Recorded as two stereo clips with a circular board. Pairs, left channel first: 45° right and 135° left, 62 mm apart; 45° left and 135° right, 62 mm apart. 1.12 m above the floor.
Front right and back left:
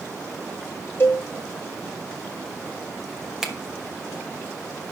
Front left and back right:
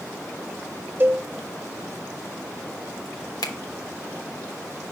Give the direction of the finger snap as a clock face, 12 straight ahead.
10 o'clock.